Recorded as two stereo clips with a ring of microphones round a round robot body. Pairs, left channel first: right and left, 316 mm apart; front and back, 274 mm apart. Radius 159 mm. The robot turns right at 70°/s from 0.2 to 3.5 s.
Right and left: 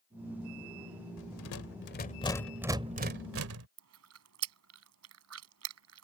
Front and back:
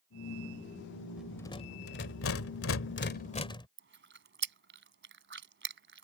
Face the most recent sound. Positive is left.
turn(degrees=135)